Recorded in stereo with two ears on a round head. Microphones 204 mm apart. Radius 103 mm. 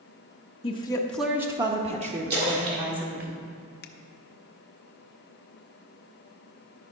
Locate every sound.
0.6 s a woman speaking: 25° left (ahead or behind), 0.7 m; by 3.3 s 45° right (ahead or behind), 1.7 m
2.3 s a splash: 65° right (ahead or behind), 2.5 m
3.8 s a finger snap: 40° left (ahead or behind), 0.5 m